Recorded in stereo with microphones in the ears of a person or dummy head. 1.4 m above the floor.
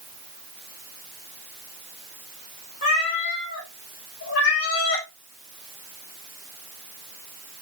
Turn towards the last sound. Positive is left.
turn(degrees=65)  # may be behind; listen again after turning